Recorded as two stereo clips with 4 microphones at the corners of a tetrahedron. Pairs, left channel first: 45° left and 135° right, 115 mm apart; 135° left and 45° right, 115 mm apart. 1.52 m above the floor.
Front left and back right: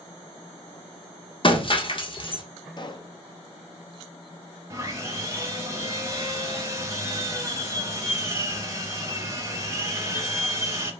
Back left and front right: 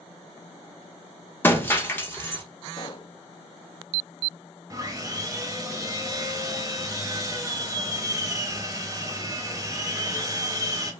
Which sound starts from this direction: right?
Sawing, at 4.7 s.